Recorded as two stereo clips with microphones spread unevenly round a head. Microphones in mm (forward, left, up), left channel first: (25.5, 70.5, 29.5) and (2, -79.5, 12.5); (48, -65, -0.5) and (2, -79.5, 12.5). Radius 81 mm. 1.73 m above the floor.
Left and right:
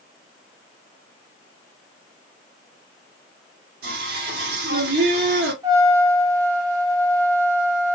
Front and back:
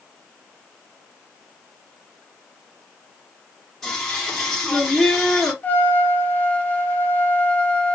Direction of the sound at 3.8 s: 75° right.